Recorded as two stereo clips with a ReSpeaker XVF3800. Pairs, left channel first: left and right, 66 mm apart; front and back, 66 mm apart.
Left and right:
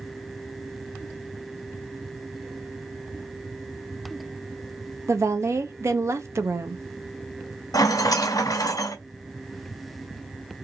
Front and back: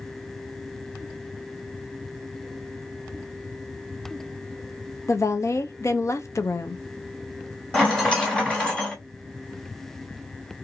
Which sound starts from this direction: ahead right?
A woman speaking, at 5.1 s.